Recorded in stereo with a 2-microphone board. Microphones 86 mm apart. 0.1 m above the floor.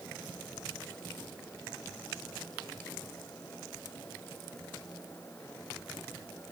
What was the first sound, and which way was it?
Only background noise.